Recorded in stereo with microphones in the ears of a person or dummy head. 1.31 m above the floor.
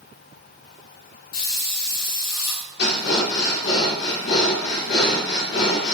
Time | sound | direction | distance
1.3 | a hiss | 75° left (ahead or behind) | 2 m
2.8 | breathing | 70° left (ahead or behind) | 3 m